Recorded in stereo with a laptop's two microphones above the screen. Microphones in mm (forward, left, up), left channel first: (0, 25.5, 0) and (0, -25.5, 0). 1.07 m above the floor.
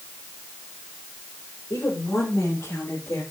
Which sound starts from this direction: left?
A woman speaking, at 1.7 s.